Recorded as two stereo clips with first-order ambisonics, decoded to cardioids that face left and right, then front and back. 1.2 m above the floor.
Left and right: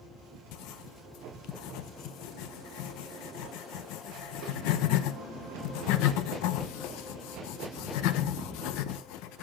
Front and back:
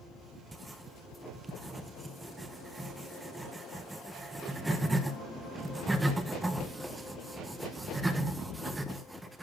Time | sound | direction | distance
0.5 | writing | 100° left | 1.0 m